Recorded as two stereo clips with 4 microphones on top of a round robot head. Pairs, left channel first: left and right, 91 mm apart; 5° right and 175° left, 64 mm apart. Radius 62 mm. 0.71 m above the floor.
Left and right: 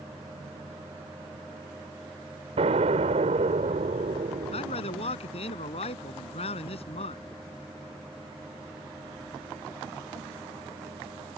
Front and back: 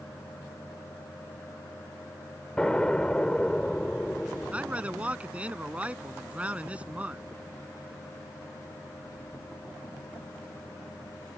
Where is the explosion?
90° right.